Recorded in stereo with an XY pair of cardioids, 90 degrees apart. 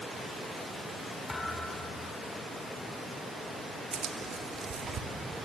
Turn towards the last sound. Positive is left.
turn(degrees=-50)